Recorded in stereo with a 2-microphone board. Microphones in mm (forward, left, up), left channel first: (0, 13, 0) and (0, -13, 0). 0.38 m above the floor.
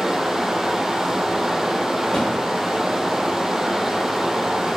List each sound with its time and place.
0.0 s running water: 20° right (ahead or behind), 0.9 m
2.1 s a thud: 40° left (ahead or behind), 3.5 m